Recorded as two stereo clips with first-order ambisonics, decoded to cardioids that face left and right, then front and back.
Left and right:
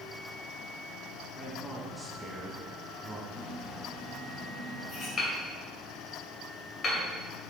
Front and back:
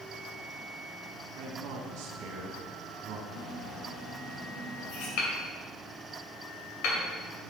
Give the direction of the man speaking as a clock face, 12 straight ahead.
6 o'clock.